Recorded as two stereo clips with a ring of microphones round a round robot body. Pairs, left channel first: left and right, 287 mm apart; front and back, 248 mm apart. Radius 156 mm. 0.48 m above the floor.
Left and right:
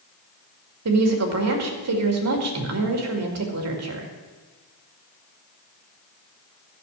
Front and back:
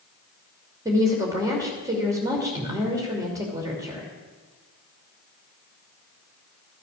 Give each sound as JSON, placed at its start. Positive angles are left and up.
{"t": 0.8, "sound": "a woman speaking", "azimuth_deg": -105, "distance_m": 2.5}